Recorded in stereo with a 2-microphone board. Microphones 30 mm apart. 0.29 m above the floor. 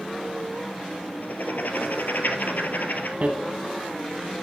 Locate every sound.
1.2 s writing: 85° left, 1.0 m
3.2 s hammering: 45° right (ahead or behind), 1.1 m